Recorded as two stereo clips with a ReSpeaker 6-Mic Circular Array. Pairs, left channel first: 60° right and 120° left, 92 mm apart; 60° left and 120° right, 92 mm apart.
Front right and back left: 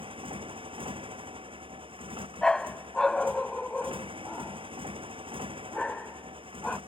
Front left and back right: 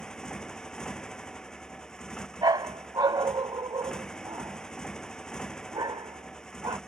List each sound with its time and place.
0.0 s a motorcycle: 140° left
2.4 s a dog barking: 140° right